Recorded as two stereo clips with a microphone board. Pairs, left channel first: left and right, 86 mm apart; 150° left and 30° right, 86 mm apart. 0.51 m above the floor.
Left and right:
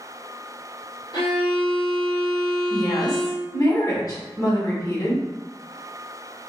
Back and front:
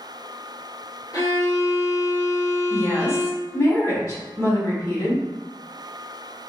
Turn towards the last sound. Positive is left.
turn(degrees=105)